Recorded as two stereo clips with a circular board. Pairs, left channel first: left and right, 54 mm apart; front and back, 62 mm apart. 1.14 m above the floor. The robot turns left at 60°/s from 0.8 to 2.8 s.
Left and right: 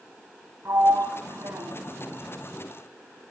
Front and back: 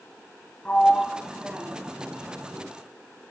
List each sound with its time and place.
0.7 s a sliding door: 65° right, 2.5 m; by 2.6 s straight behind, 2.5 m